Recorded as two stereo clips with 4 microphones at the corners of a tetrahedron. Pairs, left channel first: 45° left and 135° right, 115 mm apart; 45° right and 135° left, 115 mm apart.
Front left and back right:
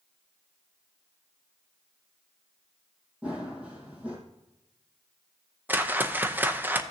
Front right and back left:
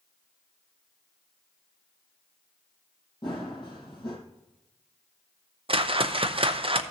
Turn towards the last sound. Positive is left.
turn(degrees=155)